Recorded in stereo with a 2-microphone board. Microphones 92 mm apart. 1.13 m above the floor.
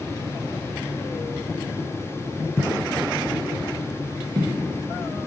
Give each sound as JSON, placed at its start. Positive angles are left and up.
{"t": 2.6, "sound": "footsteps", "side_deg": 20, "distance_m": 1.4}